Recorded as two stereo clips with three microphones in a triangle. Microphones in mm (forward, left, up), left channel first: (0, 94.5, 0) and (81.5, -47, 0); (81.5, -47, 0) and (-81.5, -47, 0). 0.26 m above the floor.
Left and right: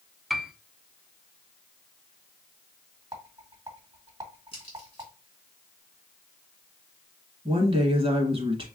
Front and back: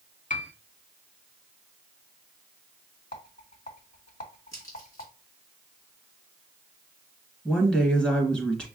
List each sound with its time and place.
0.3 s a piano: 30° left, 0.5 m
3.1 s a rattle: straight ahead, 1.8 m
4.5 s a crack: 70° left, 2.5 m
7.5 s a woman speaking: 80° right, 1.3 m